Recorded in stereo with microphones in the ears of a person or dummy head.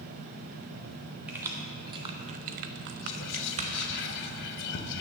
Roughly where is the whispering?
Left.